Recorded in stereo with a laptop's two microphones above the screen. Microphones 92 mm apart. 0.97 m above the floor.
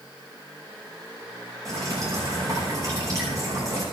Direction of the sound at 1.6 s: 35° right (ahead or behind).